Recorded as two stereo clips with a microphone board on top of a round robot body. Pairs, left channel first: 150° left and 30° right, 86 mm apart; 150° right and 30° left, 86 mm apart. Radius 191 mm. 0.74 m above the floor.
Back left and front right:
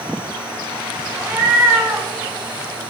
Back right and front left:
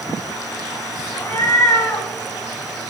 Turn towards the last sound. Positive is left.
turn(degrees=-95)